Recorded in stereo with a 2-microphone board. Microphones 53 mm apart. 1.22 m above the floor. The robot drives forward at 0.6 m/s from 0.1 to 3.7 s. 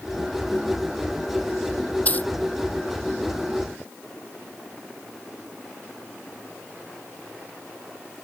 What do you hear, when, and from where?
2.0 s a dropped coin: 30° left (ahead or behind)